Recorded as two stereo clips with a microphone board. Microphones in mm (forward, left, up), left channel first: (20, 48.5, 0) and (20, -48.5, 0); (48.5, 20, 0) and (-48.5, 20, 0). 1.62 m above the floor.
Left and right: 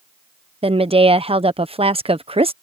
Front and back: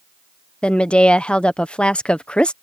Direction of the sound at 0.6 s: 80° right.